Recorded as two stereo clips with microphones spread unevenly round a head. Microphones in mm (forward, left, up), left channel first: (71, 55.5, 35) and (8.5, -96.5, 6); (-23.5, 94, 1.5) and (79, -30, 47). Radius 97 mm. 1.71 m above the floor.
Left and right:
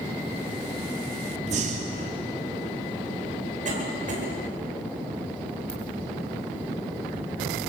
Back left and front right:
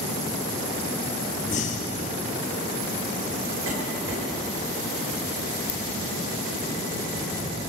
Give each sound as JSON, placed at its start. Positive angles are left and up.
{"t": 1.5, "sound": "breathing", "azimuth_deg": -170, "distance_m": 2.0}
{"t": 3.6, "sound": "a cough", "azimuth_deg": -70, "distance_m": 9.5}
{"t": 5.7, "sound": "a ringtone", "azimuth_deg": 150, "distance_m": 1.9}